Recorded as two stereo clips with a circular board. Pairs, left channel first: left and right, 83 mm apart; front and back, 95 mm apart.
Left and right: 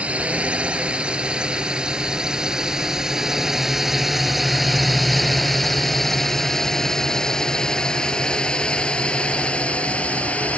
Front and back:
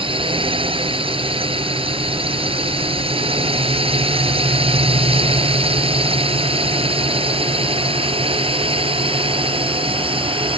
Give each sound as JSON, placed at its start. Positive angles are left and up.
{"t": 0.0, "sound": "a drone", "azimuth_deg": -165}